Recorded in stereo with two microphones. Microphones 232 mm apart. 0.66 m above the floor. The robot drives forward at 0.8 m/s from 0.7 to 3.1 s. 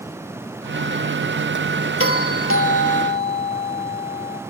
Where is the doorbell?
65° left (ahead or behind), 3 m; by 4.4 s 60° left (ahead or behind), 3 m.